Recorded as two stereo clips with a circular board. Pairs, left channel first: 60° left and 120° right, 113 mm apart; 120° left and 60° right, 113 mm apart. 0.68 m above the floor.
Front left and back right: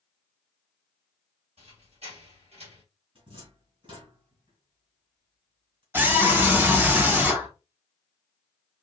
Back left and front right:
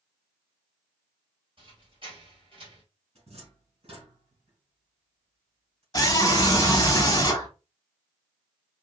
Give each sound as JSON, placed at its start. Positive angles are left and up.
{"t": 1.6, "sound": "a squeak", "azimuth_deg": -100, "distance_m": 2.0}
{"t": 3.1, "sound": "a cupboard door", "azimuth_deg": -85, "distance_m": 3.0}
{"t": 5.9, "sound": "a scream", "azimuth_deg": 170, "distance_m": 1.8}